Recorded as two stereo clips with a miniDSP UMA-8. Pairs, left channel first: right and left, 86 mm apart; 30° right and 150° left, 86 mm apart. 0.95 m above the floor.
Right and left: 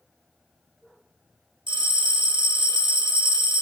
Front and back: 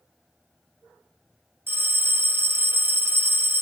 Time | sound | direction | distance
1.7 | a bell | 90° left | 1.1 m